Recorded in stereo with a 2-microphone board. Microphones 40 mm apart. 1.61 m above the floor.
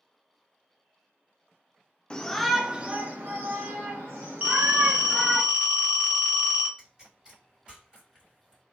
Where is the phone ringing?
35° right (ahead or behind), 0.9 m.